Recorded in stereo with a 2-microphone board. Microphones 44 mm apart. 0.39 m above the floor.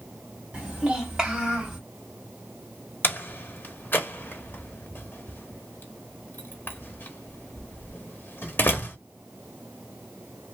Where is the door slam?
50° left (ahead or behind), 0.9 m.